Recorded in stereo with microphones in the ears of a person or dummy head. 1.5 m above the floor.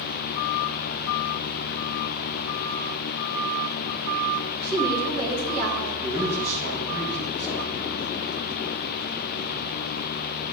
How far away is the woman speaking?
About 1.5 m.